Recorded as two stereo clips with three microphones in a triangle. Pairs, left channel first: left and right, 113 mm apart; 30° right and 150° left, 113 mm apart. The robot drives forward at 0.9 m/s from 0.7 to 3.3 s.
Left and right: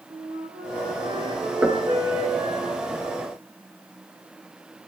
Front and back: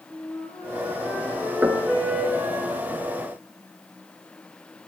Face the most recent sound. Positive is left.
turn(degrees=-175)